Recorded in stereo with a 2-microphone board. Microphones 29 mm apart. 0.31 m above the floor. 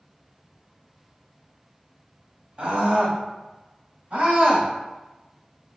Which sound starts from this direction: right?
A scream, at 2.6 s.